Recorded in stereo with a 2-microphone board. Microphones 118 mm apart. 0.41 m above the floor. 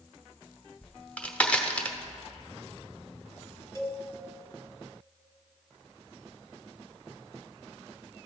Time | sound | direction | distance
0.8 | a crack | 10° left (ahead or behind) | 1.0 m
3.8 | a cowbell | 25° left (ahead or behind) | 1.4 m